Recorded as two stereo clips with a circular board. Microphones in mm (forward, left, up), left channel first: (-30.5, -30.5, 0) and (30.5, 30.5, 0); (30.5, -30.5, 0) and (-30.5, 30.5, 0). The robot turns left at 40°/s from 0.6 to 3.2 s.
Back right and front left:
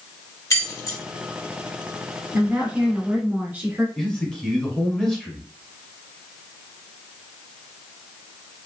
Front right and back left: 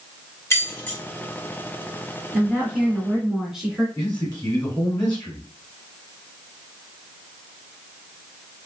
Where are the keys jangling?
95° right, 1.4 m; by 1.0 s 110° right, 1.4 m.